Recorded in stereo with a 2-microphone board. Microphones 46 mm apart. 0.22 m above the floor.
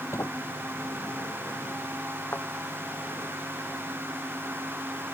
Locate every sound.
0.1 s a sliding door: 80° left
2.3 s a thud: 45° left (ahead or behind)